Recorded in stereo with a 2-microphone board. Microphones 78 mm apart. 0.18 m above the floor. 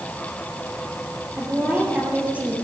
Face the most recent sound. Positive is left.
turn(degrees=-15)  # may be behind; listen again after turning